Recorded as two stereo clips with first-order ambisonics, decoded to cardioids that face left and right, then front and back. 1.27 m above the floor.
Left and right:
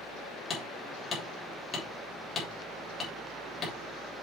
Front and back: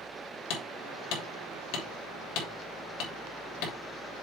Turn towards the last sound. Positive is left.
turn(degrees=25)